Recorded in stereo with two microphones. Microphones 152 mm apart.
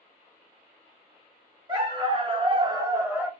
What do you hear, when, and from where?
1.7 s a dog barking: 30° right (ahead or behind), 1.1 m; by 3.3 s 5° right (ahead or behind), 0.9 m